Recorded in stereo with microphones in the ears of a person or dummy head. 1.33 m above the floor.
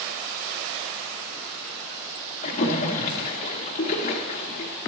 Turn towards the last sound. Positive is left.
turn(degrees=35)  # may be behind; listen again after turning